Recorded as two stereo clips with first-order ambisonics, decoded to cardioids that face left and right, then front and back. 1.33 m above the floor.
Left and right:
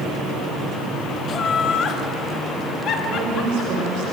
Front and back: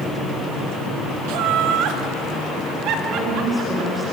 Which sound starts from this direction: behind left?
Laughter, at 1.3 s.